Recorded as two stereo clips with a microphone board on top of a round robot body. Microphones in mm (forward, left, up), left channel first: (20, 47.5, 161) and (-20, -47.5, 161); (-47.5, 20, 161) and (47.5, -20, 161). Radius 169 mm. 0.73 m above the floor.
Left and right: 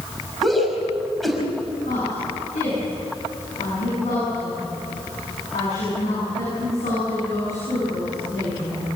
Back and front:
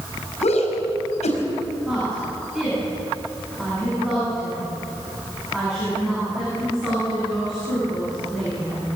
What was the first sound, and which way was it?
A shout, 155° left.